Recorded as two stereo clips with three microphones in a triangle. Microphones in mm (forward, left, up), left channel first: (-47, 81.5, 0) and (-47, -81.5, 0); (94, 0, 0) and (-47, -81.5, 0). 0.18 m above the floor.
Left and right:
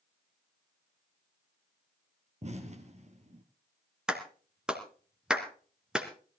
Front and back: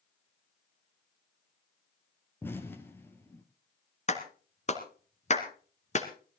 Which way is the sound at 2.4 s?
45° right.